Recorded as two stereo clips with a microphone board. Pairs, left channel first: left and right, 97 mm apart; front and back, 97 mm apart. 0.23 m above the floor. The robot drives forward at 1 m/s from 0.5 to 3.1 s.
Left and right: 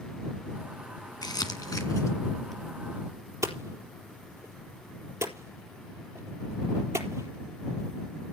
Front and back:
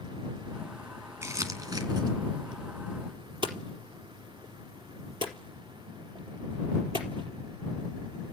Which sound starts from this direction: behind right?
Hammering, at 3.4 s.